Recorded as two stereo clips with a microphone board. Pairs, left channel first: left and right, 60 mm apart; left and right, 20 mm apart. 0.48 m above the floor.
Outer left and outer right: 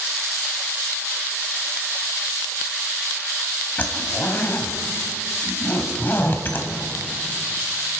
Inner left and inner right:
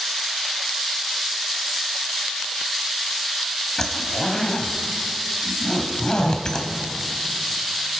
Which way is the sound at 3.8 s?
35° left (ahead or behind).